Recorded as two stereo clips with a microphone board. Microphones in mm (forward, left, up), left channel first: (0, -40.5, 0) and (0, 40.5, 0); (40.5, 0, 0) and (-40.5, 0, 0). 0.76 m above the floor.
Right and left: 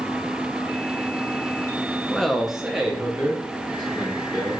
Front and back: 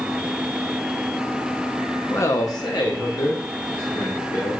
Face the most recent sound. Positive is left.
turn(degrees=15)